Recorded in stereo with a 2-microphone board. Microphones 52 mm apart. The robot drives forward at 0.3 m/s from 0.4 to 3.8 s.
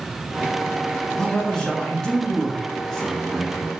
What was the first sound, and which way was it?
A man speaking, 15° left (ahead or behind).